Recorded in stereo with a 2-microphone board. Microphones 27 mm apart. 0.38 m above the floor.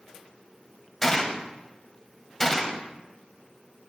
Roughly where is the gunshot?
Centre.